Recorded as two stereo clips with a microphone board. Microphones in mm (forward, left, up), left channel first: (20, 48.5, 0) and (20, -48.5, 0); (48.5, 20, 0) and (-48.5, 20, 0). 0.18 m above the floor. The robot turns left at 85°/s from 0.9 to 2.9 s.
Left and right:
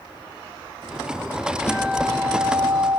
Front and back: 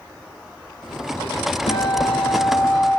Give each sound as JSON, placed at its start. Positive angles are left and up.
{"t": 1.7, "sound": "a guitar", "azimuth_deg": 20, "distance_m": 5.0}